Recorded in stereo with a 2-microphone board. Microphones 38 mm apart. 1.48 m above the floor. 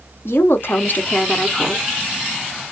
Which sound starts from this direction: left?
A woman speaking, at 0.2 s.